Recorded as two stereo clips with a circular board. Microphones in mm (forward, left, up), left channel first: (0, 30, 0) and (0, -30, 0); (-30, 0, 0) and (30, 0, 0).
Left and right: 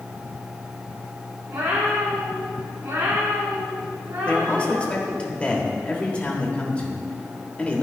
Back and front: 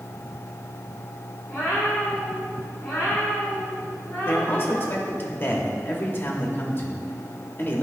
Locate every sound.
1.5 s a cat meowing: 95° right, 3 m; by 5.0 s 105° right, 5.5 m
4.2 s a man speaking: 150° left, 1.3 m